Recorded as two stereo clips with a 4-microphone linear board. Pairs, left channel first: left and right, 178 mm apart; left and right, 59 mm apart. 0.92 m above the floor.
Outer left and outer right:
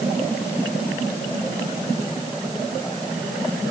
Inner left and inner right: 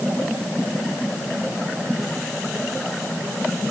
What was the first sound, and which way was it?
Only background noise.